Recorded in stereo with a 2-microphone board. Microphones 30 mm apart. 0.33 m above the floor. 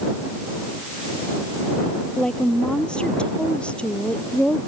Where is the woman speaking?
30° left (ahead or behind); by 4.6 s 45° left (ahead or behind).